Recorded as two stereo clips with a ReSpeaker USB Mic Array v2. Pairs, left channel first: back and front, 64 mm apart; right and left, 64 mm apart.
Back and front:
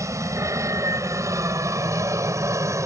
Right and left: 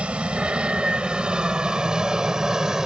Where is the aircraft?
20° left; by 2.9 s 10° left.